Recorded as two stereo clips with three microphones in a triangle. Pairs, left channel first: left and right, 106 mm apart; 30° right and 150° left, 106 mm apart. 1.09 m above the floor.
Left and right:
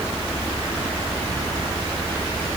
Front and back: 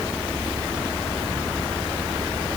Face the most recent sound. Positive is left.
No sound to turn to.